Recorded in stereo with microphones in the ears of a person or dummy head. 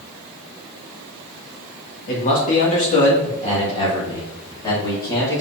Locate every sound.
2.1 s a man speaking: 50° left (ahead or behind), 2.5 m; by 5.4 s 15° left (ahead or behind), 3.5 m